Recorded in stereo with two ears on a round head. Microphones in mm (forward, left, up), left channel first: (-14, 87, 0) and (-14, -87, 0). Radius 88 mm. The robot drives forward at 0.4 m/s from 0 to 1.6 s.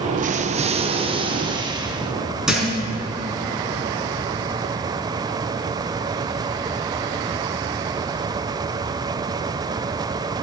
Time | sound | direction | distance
0.2 | an explosion | 45° right (ahead or behind) | 0.7 m
2.5 | a thud | 5° right (ahead or behind) | 5 m